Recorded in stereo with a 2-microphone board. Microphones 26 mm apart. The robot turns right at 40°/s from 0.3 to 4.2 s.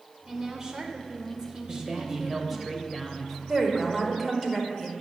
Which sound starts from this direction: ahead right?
A man speaking, at 1.7 s.